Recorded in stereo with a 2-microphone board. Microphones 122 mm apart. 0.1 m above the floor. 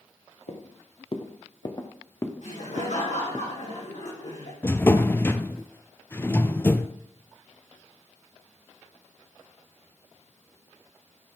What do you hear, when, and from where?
0.5 s footsteps: 55° left (ahead or behind), 1.8 m; by 3.4 s 15° right (ahead or behind), 1.3 m
2.4 s laughter: 75° left (ahead or behind), 4.5 m
4.6 s a drawer: 20° left (ahead or behind), 0.5 m